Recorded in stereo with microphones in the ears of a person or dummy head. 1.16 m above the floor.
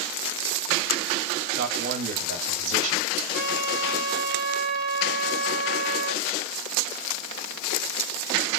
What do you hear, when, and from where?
1.6 s a man speaking: 70° right (ahead or behind), 1.4 m
3.3 s a trumpet: 45° right (ahead or behind), 2.0 m